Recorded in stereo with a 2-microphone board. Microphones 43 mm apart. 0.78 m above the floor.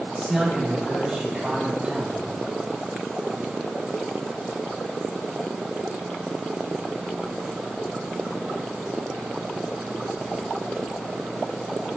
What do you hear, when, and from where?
0.2 s a man speaking: centre (ahead or behind), 3.5 m; by 2.2 s 15° right (ahead or behind), 5.5 m